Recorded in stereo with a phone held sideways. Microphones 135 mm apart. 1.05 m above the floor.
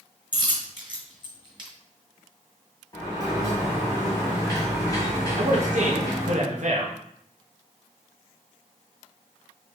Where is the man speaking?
65° right (ahead or behind), 1.1 m.